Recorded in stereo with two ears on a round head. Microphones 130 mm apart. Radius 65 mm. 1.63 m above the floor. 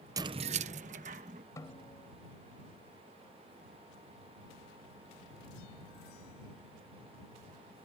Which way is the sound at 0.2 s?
25° right (ahead or behind).